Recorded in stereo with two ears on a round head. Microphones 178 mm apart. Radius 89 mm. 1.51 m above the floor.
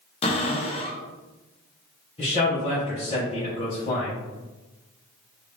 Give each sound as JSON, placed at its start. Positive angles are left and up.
{"t": 0.2, "sound": "a cupboard door", "side_deg": 30, "distance_m": 0.6}
{"t": 2.2, "sound": "a man speaking", "side_deg": 30, "distance_m": 0.9}